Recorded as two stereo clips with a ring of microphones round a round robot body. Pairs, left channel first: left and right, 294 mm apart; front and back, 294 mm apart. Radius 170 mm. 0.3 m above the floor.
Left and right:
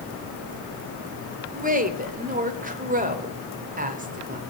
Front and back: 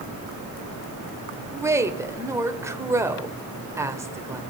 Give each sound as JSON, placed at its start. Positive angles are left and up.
{"t": 1.5, "sound": "a woman speaking", "azimuth_deg": -110, "distance_m": 1.5}